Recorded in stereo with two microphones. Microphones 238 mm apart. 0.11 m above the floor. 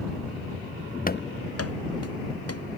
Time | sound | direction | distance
1.1 | running footsteps | 35° left (ahead or behind) | ?